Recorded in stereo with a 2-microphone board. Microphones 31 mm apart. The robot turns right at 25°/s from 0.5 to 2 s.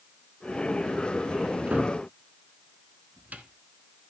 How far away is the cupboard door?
About 1.2 m.